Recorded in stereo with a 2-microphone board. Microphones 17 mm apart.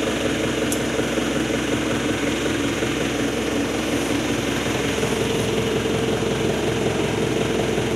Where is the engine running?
Centre (ahead or behind), 1.4 m.